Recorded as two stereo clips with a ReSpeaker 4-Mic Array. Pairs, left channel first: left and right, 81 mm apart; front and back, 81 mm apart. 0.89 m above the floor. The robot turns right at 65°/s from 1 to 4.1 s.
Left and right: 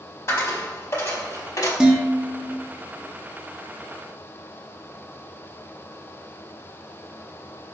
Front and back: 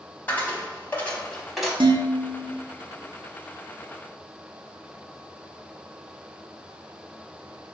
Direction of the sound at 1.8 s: 170° right.